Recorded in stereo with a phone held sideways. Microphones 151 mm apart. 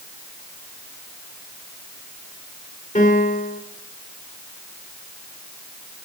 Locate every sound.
3.0 s a piano: 55° left (ahead or behind), 2.5 m